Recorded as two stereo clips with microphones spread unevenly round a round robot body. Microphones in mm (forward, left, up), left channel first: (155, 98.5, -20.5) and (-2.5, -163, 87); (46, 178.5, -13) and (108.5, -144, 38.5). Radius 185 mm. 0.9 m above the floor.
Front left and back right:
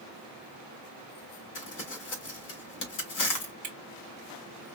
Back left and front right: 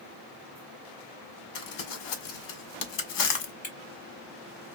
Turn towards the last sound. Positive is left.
turn(degrees=170)